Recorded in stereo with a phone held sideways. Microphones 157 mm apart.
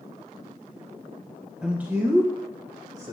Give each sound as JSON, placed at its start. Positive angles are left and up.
{"t": 1.6, "sound": "a man speaking", "side_deg": -5, "distance_m": 0.8}